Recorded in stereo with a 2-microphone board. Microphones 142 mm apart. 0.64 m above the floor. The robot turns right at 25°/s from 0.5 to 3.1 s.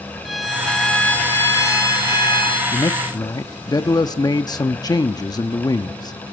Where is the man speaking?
30° left (ahead or behind), 0.7 m.